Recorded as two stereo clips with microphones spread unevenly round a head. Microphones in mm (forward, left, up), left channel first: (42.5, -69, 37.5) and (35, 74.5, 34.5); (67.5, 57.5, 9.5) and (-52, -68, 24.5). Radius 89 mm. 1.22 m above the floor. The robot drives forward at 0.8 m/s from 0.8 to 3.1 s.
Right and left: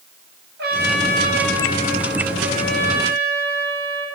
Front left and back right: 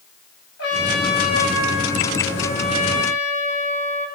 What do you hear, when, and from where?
0.6 s a trumpet: 80° left, 6 m; by 4.1 s 100° left, 6 m